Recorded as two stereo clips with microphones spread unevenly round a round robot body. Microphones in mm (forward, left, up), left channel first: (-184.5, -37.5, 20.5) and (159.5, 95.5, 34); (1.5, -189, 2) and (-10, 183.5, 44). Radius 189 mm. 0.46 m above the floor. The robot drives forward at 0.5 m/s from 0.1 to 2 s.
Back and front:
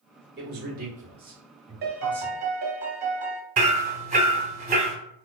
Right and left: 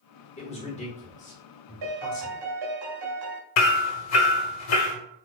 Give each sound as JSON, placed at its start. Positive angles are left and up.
{"t": 0.4, "sound": "a man speaking", "azimuth_deg": -30, "distance_m": 1.5}
{"t": 1.8, "sound": "a piano", "azimuth_deg": 85, "distance_m": 0.8}
{"t": 3.6, "sound": "hammering", "azimuth_deg": -50, "distance_m": 0.5}